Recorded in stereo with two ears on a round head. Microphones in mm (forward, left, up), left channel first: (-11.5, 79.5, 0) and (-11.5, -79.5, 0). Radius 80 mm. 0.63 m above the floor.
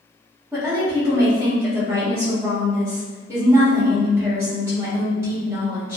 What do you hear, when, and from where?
0.5 s a woman speaking: 15° right (ahead or behind), 1.4 m